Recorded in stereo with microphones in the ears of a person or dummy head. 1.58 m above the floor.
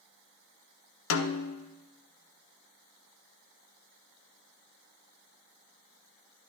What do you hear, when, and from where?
1.1 s a snare drum: 80° left, 0.6 m